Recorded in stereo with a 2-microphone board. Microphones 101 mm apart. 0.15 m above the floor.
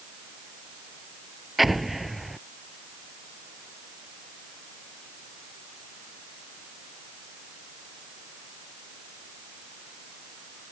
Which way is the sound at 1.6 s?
Centre (ahead or behind).